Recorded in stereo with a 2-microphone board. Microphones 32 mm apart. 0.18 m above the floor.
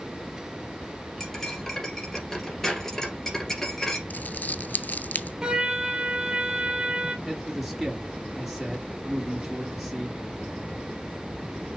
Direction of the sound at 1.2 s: 15° left (ahead or behind).